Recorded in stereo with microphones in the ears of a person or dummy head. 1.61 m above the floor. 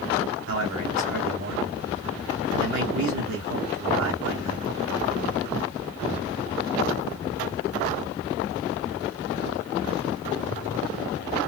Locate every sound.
0.5 s a man speaking: 75° right (ahead or behind), 2 m